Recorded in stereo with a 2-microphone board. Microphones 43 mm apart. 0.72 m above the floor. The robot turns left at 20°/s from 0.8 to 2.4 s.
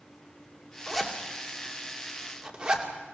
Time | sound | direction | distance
0.9 | a zipper | centre (ahead or behind) | 2.5 m